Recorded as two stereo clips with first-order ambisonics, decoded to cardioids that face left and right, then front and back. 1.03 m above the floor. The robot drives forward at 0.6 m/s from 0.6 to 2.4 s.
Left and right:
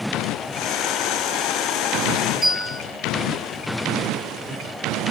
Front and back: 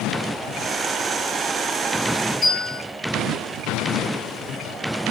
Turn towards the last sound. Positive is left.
turn(degrees=110)